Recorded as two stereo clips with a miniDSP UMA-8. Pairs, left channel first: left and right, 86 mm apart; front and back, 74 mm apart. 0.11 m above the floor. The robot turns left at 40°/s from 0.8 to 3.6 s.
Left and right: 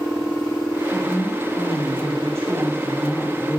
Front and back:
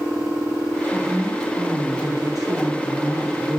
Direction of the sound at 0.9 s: 90° right.